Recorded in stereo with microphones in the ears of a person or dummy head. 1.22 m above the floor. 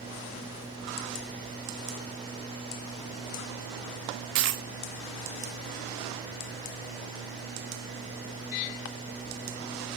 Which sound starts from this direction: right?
A dropped coin, at 4.3 s.